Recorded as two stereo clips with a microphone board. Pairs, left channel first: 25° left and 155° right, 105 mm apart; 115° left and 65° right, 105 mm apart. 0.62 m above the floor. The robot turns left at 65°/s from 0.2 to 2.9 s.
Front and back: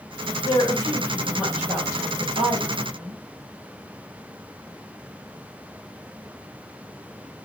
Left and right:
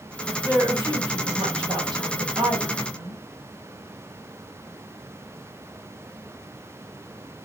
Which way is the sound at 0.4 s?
5° right.